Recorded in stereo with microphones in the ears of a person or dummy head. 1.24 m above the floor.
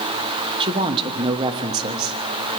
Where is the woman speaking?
25° right (ahead or behind), 1.2 m.